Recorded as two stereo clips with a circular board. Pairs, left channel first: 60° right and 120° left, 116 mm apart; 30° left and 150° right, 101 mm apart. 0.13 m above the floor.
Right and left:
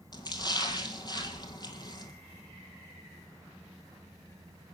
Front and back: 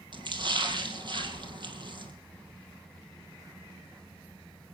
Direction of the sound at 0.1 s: 110° right.